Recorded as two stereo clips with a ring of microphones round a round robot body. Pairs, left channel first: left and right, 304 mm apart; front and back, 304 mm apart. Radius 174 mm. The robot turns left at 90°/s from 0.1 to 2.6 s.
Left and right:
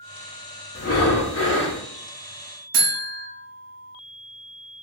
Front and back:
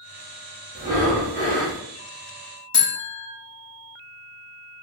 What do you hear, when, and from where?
0.8 s breathing: 120° left, 0.6 m; by 1.8 s 30° left, 0.6 m
2.7 s a buzzer: 75° right, 0.8 m